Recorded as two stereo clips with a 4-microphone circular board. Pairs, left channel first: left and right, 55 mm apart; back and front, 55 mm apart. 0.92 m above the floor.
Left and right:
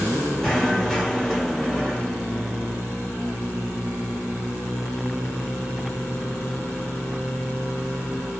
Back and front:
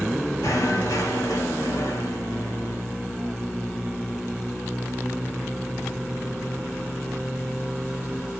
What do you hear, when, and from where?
0.4 s knocking: 170° left, 2 m